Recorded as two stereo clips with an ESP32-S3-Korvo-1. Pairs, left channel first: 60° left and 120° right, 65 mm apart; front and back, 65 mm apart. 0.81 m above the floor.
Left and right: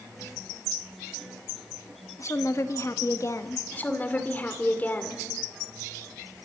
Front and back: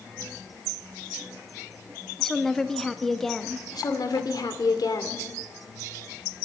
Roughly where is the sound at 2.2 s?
Left.